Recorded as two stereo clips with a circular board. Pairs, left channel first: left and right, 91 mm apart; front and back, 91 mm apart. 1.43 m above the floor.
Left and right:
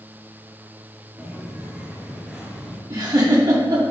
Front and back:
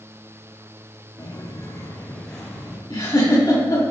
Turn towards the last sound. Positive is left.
turn(degrees=-45)